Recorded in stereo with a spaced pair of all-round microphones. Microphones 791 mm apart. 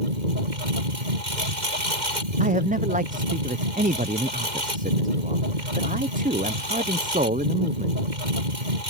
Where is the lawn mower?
65° right (ahead or behind).